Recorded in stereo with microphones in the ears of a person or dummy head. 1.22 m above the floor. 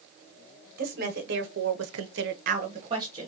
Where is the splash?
No splash in this recording.